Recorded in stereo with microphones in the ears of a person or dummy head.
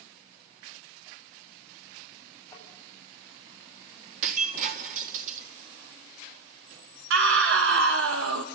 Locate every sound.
2.5 s tapping: 15° left (ahead or behind), 8 m
4.2 s breaking glass: 45° right (ahead or behind), 2 m
7.1 s a scream: 75° right (ahead or behind), 3 m